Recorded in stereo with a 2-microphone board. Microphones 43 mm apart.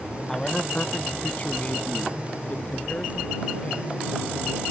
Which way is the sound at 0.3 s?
10° left (ahead or behind).